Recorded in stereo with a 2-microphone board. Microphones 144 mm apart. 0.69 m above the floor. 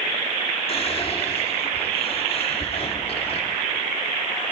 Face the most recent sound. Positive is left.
turn(degrees=40)  # may be behind; listen again after turning